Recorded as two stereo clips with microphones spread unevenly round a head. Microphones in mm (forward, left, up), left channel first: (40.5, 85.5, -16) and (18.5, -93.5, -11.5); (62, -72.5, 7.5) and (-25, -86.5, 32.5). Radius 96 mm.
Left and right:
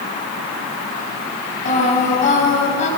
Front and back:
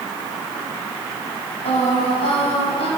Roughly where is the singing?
Ahead left.